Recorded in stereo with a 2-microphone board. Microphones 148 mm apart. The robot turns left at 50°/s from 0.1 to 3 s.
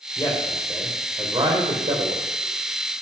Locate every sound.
0.2 s a man speaking: 30° left, 4 m; by 2.2 s 75° right, 4 m